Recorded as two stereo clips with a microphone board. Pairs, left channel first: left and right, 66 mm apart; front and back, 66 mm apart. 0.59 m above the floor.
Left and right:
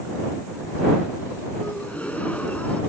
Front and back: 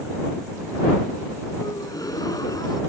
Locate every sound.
1.6 s a gasp: 20° left